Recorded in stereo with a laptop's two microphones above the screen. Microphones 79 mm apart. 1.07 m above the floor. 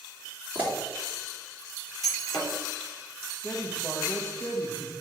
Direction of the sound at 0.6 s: 20° right (ahead or behind).